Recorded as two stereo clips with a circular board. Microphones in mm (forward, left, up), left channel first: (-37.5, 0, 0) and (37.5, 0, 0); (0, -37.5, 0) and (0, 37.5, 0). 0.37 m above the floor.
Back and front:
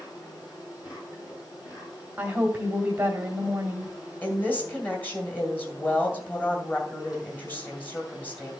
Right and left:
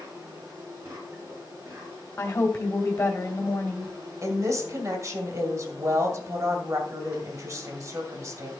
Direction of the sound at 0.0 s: 145° left.